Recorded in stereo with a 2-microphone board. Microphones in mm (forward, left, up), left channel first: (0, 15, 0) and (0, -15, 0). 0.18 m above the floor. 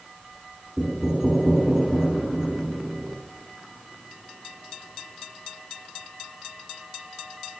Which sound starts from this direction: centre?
Knocking, at 0.8 s.